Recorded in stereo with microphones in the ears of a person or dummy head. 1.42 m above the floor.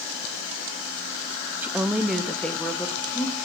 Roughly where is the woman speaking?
Centre.